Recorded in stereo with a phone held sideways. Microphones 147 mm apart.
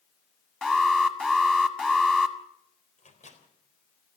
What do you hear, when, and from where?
0.6 s an alarm: 5° left (ahead or behind), 2.0 m
3.0 s a microwave: 55° left (ahead or behind), 4 m